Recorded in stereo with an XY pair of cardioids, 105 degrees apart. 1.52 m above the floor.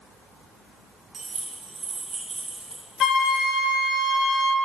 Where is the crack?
I don't hear a crack.